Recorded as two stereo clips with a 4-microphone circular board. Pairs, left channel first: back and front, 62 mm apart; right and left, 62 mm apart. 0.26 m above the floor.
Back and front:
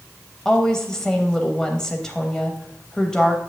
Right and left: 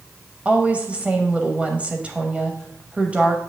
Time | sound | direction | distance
0.5 | a woman speaking | 115° left | 0.9 m